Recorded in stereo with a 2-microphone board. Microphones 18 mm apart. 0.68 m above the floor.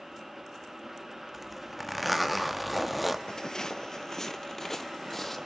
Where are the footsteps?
45° left (ahead or behind), 0.9 m; by 5.5 s 15° left (ahead or behind), 1.6 m.